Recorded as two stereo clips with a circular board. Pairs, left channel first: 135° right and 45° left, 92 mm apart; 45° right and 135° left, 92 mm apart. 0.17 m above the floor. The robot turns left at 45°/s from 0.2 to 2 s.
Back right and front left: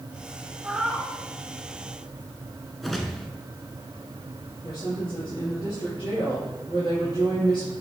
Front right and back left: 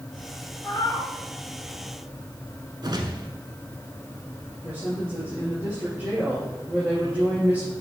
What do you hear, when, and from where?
0.6 s a cat meowing: 25° right, 1.0 m; by 1.1 s 50° right, 1.0 m
2.8 s a whoosh: 135° left, 0.9 m
4.6 s a woman speaking: 155° right, 3.5 m